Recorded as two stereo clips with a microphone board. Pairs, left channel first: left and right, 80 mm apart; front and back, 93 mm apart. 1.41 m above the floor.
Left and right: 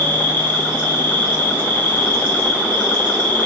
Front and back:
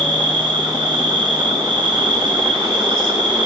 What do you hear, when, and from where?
0.0 s an insect: 155° left, 5 m